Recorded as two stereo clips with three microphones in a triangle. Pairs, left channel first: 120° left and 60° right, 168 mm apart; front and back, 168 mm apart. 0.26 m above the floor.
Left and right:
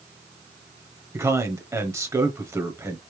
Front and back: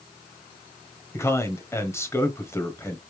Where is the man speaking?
30° right, 1.0 m.